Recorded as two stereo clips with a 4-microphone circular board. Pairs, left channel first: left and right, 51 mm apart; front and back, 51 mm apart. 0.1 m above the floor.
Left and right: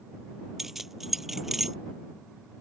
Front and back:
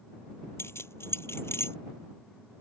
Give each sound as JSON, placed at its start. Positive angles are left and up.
{"t": 0.6, "sound": "keys jangling", "azimuth_deg": -5}